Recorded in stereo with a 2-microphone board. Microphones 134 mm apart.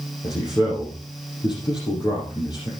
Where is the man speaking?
35° left (ahead or behind), 5 m.